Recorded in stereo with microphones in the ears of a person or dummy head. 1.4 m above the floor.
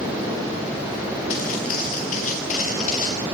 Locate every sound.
1.3 s footsteps: 50° left (ahead or behind), 7.5 m; by 3.2 s 45° left (ahead or behind), 8.5 m